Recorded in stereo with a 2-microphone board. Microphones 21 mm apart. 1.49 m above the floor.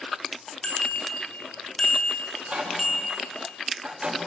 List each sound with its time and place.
0.6 s a bicycle bell: 55° left (ahead or behind), 2.5 m; by 3.2 s centre (ahead or behind), 2 m
2.3 s a microwave: 80° right, 5 m